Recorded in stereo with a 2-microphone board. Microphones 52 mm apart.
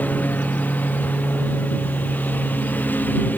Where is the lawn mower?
30° left (ahead or behind); by 3.4 s 35° left (ahead or behind).